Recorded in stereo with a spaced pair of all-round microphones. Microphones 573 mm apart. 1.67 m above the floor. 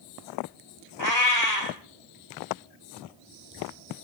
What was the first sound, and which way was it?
A cat meowing, 45° right (ahead or behind).